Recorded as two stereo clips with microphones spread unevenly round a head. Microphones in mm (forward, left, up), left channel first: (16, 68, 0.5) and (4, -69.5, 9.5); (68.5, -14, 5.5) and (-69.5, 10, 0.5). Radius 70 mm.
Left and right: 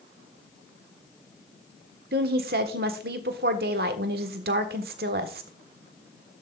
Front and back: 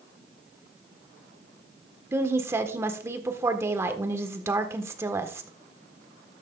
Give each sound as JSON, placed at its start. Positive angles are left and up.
{"t": 2.1, "sound": "a woman speaking", "azimuth_deg": -120, "distance_m": 1.4}